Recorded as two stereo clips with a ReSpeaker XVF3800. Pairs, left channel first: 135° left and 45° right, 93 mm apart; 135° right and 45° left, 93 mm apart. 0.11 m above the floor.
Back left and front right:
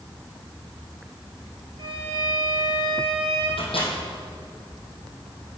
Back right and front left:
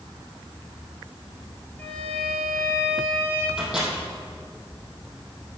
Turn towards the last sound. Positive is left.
turn(degrees=130)